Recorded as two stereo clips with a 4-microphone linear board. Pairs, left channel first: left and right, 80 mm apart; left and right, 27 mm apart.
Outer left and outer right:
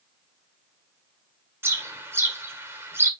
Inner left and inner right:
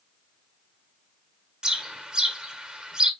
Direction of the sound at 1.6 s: 30° right (ahead or behind).